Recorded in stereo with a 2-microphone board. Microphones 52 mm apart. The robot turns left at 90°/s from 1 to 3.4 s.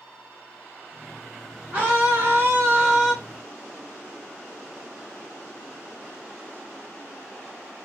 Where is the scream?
45° right, 2 m; by 3.1 s 175° right, 2 m.